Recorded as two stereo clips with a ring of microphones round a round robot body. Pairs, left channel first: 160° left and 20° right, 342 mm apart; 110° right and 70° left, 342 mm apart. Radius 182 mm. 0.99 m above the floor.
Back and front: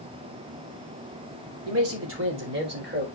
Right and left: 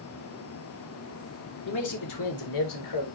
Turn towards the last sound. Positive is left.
turn(degrees=-85)